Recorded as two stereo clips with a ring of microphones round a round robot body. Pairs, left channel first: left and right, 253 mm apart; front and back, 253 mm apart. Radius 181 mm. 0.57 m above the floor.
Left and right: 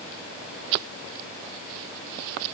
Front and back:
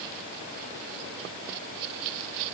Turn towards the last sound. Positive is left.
No sound to turn to.